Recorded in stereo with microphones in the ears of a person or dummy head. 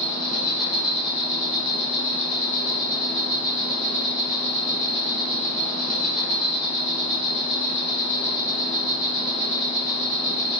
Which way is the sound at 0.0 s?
15° left (ahead or behind).